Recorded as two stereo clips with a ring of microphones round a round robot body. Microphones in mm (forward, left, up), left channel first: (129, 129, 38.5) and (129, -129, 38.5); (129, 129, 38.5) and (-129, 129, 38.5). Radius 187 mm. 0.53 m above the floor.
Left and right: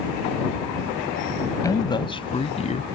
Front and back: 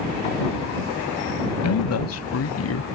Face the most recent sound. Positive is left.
turn(degrees=30)